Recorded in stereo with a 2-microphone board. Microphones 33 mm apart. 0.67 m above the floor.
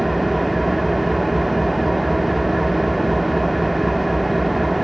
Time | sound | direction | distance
0.0 | an engine running | centre (ahead or behind) | 0.8 m